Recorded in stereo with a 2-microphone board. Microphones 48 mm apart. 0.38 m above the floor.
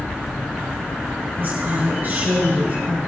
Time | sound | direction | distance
1.4 | a woman speaking | 45° right (ahead or behind) | 3.5 m